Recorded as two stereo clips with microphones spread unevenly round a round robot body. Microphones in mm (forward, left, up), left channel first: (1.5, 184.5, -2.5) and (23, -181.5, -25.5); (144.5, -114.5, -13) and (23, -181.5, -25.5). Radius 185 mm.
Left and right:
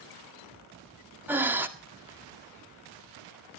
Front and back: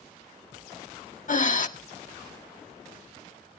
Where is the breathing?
Straight ahead, 1.8 m.